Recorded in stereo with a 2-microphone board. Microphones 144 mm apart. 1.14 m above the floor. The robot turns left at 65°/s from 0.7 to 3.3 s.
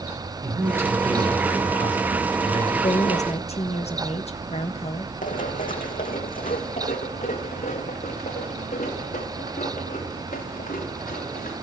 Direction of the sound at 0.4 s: 155° right.